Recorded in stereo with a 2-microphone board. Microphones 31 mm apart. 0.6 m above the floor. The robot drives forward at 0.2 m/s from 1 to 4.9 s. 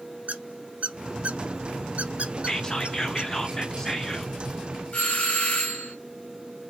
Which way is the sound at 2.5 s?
20° left (ahead or behind).